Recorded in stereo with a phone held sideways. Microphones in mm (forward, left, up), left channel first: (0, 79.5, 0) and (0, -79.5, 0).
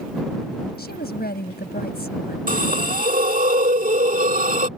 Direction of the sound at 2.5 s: 60° right (ahead or behind).